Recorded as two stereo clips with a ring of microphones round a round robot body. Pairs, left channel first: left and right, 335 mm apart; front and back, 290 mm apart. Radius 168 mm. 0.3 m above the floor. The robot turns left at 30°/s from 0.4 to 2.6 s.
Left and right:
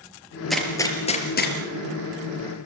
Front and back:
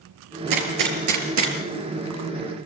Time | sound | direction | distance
0.5 | a gunshot | straight behind | 4.5 m